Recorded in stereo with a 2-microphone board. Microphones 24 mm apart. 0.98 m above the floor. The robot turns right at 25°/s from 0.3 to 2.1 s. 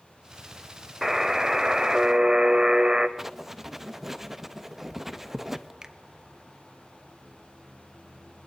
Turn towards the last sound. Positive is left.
turn(degrees=-25)  # may be behind; listen again after turning